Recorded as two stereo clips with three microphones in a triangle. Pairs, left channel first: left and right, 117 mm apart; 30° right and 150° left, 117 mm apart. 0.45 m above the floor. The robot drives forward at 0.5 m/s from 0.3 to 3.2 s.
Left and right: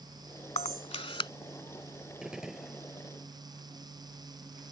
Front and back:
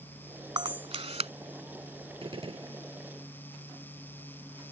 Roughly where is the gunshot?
Behind.